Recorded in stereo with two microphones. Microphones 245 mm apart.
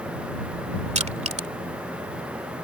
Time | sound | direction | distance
0.9 | crushing | 30° right (ahead or behind) | ?